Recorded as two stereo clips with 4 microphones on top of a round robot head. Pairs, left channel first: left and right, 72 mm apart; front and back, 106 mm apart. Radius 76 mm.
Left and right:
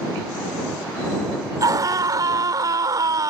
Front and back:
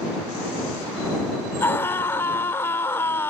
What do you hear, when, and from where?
1.6 s a scream: 65° right